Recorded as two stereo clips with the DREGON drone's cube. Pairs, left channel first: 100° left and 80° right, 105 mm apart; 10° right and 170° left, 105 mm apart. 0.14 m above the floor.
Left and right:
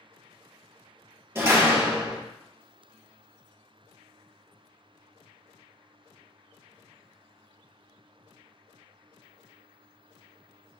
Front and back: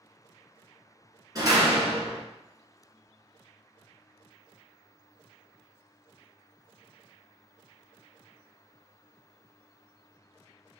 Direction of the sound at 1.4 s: 140° right.